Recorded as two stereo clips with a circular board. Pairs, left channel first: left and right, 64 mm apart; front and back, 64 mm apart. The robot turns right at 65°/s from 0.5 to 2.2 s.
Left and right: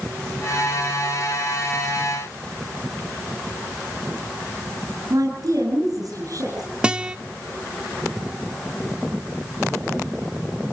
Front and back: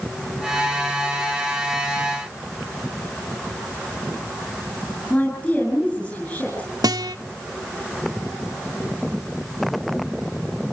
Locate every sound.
5.1 s a woman speaking: 60° right, 8 m
6.8 s a guitar: 165° right, 0.9 m